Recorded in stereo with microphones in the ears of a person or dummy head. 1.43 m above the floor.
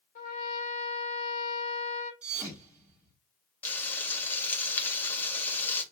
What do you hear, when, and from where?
0.1 s a trumpet: 50° left (ahead or behind), 1.2 m
2.2 s a thud: centre (ahead or behind), 1.7 m
3.6 s frying: 15° left (ahead or behind), 0.9 m